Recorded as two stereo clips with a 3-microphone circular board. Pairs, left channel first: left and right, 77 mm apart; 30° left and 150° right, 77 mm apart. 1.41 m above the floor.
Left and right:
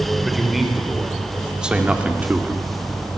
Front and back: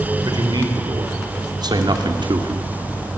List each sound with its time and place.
0.2 s a man speaking: straight behind, 4.5 m; by 2.7 s 155° right, 2 m